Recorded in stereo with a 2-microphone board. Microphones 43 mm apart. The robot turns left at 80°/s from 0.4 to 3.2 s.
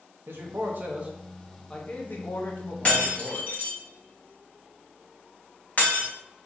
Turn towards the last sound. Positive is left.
turn(degrees=40)  # may be behind; listen again after turning